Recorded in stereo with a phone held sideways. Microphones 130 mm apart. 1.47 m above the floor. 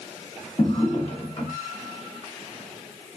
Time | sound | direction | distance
0.6 | a drawer | 45° left (ahead or behind) | 1.1 m